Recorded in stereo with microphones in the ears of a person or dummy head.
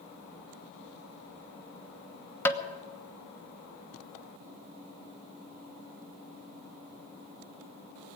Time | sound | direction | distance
2.5 | tapping | 10° left (ahead or behind) | 1.1 m